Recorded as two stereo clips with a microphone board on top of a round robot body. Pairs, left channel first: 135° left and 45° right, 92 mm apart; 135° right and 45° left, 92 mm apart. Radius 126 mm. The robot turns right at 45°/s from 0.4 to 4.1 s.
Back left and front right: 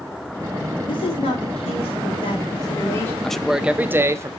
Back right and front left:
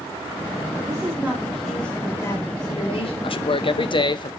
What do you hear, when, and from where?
0.9 s a woman speaking: 100° left, 3 m; by 3.1 s 155° right, 3 m
3.2 s a man speaking: 145° right, 0.8 m; by 4.3 s 105° right, 0.8 m